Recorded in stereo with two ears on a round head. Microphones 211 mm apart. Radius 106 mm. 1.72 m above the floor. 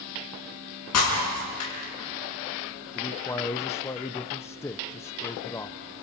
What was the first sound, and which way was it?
Breaking glass, 80° left.